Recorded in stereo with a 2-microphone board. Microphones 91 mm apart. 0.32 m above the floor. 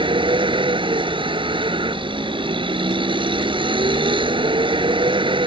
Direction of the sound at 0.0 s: 70° right (ahead or behind).